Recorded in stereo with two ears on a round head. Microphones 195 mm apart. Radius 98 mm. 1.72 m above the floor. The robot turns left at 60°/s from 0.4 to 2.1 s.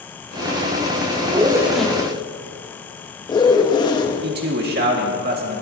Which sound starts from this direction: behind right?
A zipper, at 1.3 s.